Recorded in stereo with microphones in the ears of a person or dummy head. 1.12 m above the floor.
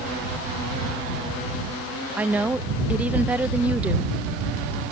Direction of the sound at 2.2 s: 10° right (ahead or behind).